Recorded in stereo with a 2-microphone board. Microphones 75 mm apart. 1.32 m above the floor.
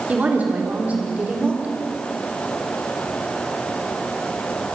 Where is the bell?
No bell in this recording.